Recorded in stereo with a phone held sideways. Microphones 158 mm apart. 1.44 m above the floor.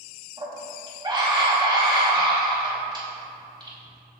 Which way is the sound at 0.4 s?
30° right (ahead or behind).